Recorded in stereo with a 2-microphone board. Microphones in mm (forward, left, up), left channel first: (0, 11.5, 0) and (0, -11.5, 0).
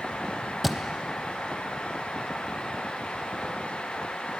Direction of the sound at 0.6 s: 10° right (ahead or behind).